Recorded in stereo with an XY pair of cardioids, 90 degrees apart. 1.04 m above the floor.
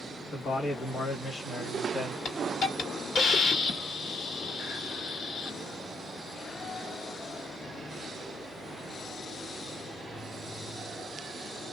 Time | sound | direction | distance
0.3 | a man speaking | 60° left | 1.6 m
2.2 | a hiss | 65° left | 1.4 m